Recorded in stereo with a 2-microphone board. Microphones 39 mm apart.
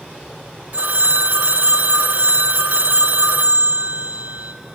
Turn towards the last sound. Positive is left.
turn(degrees=-50)  # may be behind; listen again after turning